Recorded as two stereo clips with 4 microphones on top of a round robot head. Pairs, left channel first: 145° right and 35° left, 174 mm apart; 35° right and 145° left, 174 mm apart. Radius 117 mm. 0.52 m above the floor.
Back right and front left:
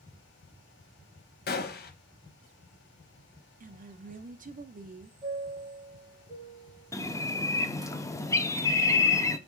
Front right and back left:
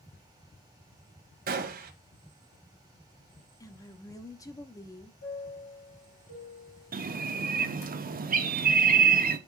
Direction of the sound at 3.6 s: 30° left.